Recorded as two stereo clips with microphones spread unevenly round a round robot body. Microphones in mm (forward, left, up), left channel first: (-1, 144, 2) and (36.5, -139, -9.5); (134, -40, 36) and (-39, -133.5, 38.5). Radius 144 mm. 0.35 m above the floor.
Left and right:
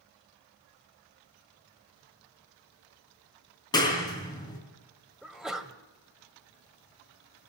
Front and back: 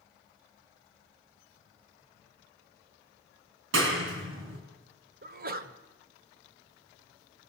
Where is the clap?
175° left, 4.5 m.